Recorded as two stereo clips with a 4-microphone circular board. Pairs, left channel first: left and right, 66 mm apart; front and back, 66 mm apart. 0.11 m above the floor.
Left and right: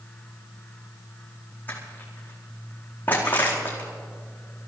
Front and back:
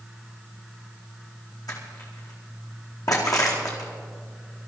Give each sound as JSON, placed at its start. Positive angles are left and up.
{"t": 1.7, "sound": "crushing", "azimuth_deg": 25, "distance_m": 4.5}